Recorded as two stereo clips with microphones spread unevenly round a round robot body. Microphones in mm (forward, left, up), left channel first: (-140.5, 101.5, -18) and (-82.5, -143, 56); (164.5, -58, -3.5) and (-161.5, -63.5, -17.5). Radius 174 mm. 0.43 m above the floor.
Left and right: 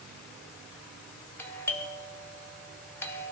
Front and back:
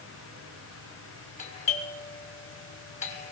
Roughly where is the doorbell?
Ahead left.